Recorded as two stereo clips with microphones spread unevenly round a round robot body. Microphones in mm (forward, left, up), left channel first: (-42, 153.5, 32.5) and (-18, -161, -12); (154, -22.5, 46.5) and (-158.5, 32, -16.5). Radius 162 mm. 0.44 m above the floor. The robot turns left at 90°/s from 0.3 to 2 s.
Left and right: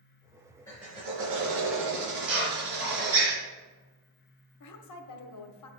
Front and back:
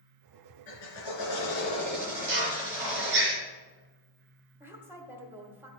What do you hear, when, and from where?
0.7 s a drill: 15° left, 3 m; by 3.3 s 105° right, 3 m
2.3 s a drill: 130° right, 4.5 m
4.6 s a woman speaking: 100° left, 1.1 m